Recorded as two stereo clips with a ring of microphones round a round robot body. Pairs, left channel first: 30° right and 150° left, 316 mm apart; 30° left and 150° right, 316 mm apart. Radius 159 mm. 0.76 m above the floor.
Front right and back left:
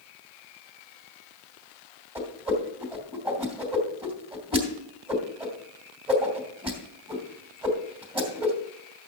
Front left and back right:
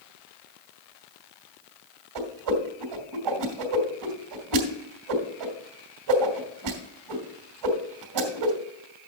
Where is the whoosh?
135° right, 2.5 m.